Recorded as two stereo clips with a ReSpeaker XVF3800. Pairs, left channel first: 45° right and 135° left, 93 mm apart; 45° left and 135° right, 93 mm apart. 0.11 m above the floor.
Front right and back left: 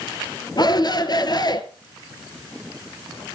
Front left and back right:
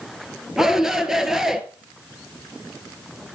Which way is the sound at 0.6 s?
50° right.